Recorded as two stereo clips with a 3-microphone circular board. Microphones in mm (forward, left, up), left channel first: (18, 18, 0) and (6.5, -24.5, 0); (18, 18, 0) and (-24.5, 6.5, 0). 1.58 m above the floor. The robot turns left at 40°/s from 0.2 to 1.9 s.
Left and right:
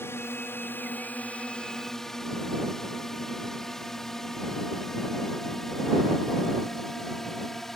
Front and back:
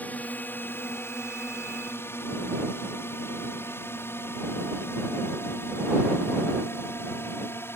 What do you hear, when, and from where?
0.0 s a drone: 65° left; by 7.8 s 10° right